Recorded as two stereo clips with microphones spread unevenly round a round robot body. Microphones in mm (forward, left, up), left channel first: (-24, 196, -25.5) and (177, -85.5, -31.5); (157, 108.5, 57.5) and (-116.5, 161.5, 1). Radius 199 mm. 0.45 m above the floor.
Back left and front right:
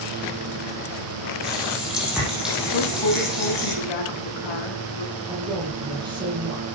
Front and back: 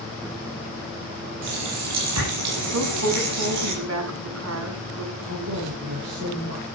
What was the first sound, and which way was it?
A running tap, 145° right.